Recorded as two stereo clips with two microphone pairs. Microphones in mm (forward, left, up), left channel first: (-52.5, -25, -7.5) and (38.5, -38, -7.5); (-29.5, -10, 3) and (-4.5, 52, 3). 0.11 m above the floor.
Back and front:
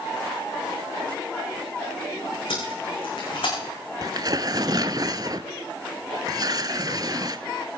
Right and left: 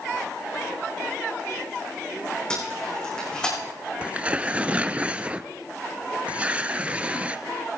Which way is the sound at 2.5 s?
170° left.